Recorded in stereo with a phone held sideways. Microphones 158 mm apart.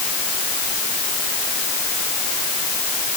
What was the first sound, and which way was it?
Only background noise.